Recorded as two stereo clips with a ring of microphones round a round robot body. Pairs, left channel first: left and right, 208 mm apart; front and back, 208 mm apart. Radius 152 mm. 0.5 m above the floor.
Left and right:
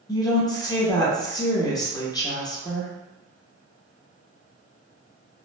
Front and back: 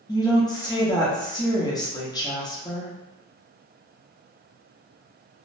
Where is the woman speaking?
45° left, 0.8 m.